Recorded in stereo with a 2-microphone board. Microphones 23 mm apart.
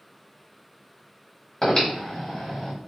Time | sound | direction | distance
1.6 | breathing | 25° left (ahead or behind) | 1.6 m